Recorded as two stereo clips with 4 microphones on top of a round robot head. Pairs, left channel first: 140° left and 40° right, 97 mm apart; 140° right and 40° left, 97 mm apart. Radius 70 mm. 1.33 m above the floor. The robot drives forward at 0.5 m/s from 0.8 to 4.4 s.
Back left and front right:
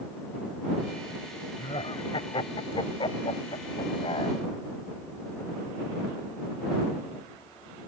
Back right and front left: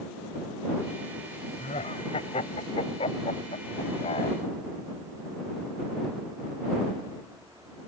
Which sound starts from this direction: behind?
Laughter, at 1.6 s.